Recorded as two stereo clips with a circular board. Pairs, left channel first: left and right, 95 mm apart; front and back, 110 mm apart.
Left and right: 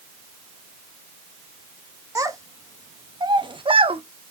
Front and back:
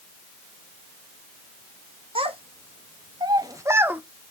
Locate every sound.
2.1 s a child speaking: 145° right, 1.6 m; by 4.0 s 100° right, 0.8 m